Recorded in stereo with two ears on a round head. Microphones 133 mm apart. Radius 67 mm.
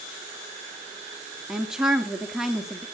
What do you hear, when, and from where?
1.5 s a woman speaking: 5° right (ahead or behind), 1.3 m